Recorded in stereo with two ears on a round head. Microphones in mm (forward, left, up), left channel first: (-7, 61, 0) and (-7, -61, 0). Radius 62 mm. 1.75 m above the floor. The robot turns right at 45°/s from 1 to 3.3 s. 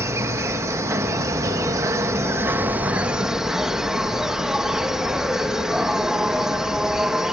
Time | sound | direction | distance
0.0 | an insect | 20° right (ahead or behind) | ?